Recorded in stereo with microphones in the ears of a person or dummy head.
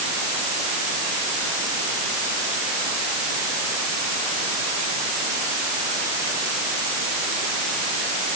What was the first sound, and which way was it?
Only background noise.